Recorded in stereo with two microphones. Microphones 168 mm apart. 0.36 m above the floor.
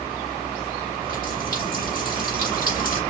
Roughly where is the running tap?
Left.